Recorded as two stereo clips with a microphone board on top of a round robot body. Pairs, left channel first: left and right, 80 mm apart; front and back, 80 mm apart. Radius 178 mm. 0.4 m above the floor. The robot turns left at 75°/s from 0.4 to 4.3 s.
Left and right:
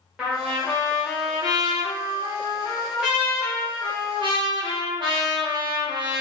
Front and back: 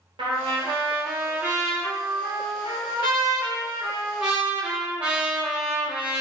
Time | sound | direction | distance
0.2 | a trumpet | 170° right | 0.9 m